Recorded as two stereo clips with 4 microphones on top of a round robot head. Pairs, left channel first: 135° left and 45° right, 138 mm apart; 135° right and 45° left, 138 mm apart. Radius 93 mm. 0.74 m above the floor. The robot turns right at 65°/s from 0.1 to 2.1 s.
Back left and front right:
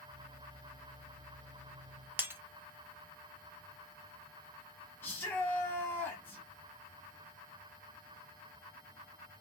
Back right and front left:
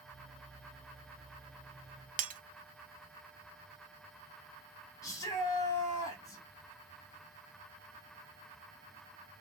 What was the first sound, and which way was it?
Breaking glass, 30° left.